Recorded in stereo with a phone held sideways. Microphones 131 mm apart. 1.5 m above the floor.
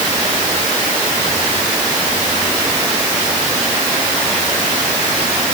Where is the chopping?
No chopping in this recording.